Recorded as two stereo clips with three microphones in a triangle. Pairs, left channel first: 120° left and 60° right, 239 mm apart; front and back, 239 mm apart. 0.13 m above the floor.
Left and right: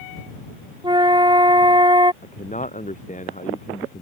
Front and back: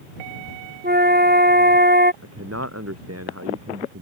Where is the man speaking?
Straight behind.